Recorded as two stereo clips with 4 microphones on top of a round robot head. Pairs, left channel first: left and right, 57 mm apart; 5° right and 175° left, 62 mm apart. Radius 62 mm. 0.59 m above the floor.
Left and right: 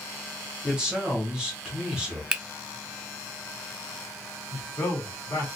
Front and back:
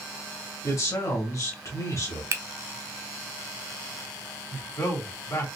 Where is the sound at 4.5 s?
35° left, 1.8 m.